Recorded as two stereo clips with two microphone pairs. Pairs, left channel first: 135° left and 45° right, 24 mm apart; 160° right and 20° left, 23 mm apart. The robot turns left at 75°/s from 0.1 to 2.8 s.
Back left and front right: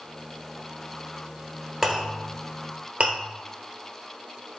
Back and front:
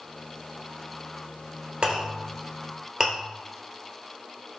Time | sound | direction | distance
1.8 | a clink | 35° left | 1.2 m